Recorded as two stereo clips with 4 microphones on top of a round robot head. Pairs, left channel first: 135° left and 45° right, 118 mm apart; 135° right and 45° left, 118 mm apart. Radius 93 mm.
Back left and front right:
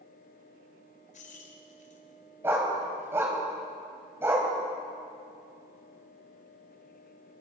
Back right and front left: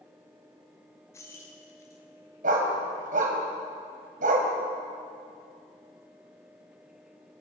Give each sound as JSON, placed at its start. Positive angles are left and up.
{"t": 1.1, "sound": "keys jangling", "azimuth_deg": 155, "distance_m": 3.5}
{"t": 2.4, "sound": "a dog barking", "azimuth_deg": 25, "distance_m": 4.0}